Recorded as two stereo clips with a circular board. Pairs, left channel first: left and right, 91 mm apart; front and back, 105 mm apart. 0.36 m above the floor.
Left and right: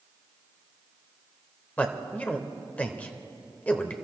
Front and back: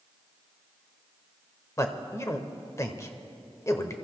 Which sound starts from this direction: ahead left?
A man speaking, at 1.8 s.